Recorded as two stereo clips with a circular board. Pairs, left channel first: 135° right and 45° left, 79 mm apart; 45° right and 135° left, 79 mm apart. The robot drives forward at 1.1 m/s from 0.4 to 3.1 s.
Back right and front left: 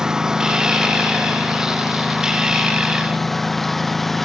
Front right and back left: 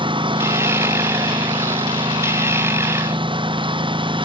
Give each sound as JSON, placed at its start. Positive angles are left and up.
{"t": 0.0, "sound": "a lawn mower", "azimuth_deg": 130}